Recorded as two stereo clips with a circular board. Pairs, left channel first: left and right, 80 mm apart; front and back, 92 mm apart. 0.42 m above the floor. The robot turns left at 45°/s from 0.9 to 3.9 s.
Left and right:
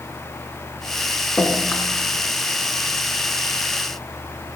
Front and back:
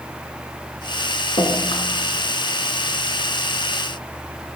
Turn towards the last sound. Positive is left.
turn(degrees=-105)